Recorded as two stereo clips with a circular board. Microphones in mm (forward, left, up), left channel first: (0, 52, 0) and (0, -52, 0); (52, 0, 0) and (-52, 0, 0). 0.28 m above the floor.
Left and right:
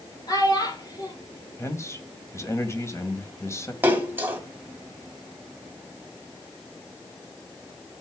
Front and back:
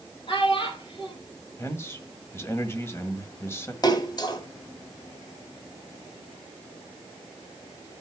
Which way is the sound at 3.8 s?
25° right.